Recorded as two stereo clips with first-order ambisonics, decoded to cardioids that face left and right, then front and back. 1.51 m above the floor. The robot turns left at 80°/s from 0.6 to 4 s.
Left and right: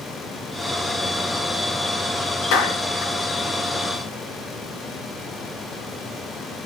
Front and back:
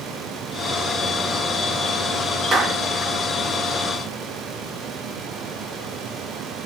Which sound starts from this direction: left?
A clap, at 2.5 s.